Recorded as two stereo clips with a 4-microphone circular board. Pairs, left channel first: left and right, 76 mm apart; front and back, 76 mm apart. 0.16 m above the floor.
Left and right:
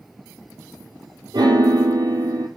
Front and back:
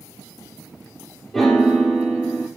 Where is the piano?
90° right, 1.1 m.